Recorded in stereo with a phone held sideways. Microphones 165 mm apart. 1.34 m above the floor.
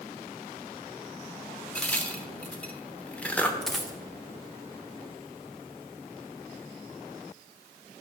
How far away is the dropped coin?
About 1.2 m.